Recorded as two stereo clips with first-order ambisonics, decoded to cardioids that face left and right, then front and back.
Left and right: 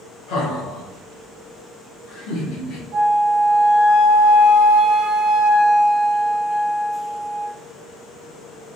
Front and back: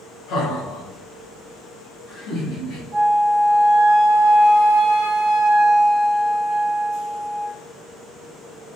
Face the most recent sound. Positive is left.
turn(degrees=-120)